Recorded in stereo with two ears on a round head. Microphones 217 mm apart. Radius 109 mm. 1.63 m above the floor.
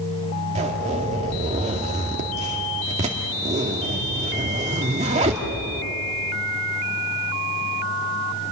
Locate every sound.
0.6 s a zipper: 30° right (ahead or behind), 2 m